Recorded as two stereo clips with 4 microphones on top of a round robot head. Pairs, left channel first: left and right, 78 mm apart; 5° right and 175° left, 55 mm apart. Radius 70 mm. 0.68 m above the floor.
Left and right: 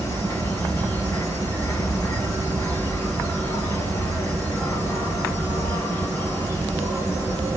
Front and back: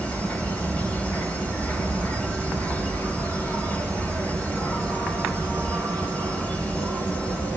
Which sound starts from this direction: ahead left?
An insect, at 0.0 s.